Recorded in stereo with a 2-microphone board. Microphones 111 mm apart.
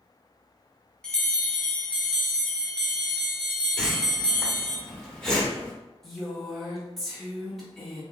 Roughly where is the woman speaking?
Centre.